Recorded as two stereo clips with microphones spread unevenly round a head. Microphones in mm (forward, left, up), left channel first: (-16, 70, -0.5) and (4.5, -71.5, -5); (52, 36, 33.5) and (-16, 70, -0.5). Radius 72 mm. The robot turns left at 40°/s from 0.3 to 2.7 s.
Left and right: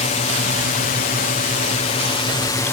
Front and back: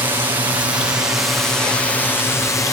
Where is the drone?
125° left; by 2.7 s 30° left.